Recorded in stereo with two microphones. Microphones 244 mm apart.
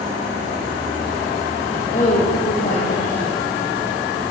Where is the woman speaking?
35° left (ahead or behind), 4 m.